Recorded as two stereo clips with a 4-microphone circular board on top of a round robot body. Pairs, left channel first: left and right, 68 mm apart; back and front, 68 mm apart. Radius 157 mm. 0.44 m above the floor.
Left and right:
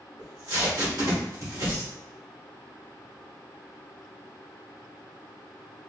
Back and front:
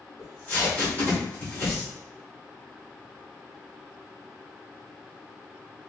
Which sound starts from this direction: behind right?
Tape being pulled, at 0.2 s.